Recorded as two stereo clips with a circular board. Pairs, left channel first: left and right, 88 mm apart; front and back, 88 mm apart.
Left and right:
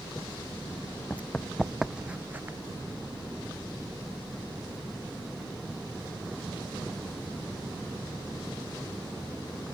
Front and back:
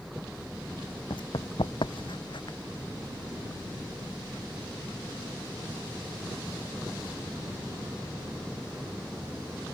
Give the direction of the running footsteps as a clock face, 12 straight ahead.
11 o'clock.